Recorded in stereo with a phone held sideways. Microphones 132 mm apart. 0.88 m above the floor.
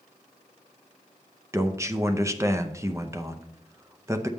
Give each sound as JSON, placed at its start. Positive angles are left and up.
{"t": 1.5, "sound": "a man speaking", "side_deg": -20, "distance_m": 0.5}